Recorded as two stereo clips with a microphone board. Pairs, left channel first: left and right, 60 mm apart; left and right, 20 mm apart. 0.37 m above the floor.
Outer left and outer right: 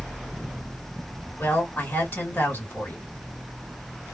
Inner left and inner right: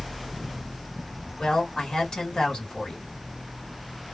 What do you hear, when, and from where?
1.4 s a woman speaking: 35° left (ahead or behind), 1.7 m